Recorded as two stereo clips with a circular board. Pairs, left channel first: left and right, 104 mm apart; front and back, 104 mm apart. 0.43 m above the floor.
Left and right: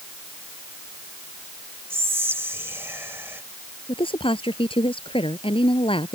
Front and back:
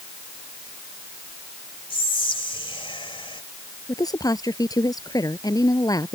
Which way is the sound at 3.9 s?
55° left.